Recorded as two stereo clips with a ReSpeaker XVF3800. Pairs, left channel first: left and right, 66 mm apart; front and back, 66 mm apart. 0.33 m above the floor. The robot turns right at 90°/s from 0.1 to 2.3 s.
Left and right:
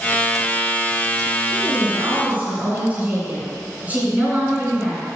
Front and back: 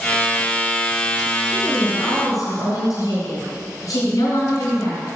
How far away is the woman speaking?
About 3 m.